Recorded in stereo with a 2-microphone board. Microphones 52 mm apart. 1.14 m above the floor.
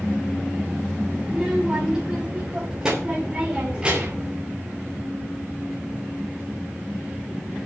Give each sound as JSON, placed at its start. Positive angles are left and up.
{"t": 1.2, "sound": "a child speaking", "side_deg": -5, "distance_m": 5.0}